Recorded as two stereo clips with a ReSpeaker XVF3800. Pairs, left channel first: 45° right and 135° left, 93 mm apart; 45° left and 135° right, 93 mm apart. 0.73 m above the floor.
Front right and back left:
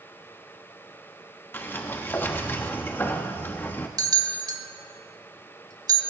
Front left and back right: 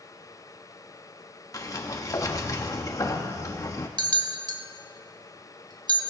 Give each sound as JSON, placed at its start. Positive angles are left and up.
{"t": 1.5, "sound": "a sliding door", "azimuth_deg": 15, "distance_m": 1.2}
{"t": 4.0, "sound": "a bell", "azimuth_deg": -175, "distance_m": 1.2}